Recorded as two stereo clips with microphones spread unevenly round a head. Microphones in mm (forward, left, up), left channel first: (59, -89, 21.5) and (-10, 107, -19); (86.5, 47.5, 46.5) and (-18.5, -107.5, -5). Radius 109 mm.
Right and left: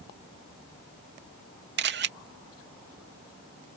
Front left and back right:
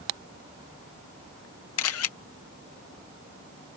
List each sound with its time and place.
1.8 s a camera shutter: 70° left